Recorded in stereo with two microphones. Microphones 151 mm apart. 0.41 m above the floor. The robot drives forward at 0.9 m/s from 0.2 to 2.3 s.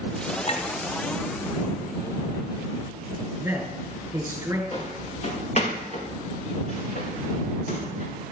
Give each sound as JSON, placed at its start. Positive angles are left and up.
{"t": 0.5, "sound": "a clink", "side_deg": 45, "distance_m": 1.9}
{"t": 3.4, "sound": "a man speaking", "side_deg": -15, "distance_m": 5.5}
{"t": 4.7, "sound": "footsteps", "side_deg": 40, "distance_m": 5.5}